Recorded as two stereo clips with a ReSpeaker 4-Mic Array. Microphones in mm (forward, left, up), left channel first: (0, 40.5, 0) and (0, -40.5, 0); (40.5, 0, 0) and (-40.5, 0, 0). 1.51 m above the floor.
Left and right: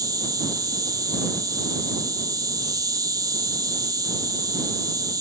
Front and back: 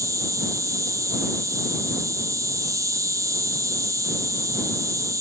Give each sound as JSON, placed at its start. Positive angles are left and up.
{"t": 0.0, "sound": "an insect", "azimuth_deg": -130}